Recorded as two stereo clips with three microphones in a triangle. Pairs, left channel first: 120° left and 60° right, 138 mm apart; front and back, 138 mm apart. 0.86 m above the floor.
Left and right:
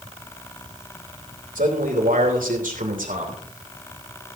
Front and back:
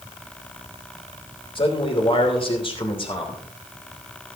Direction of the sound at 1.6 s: 50° right.